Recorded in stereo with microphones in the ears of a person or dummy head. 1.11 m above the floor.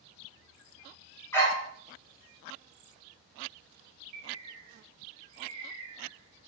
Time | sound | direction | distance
1.3 | a dog barking | 15° left (ahead or behind) | 1.1 m
4.1 | a bird | 45° right (ahead or behind) | 0.7 m